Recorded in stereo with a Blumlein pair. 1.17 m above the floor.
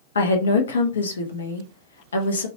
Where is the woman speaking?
70° left, 0.6 m.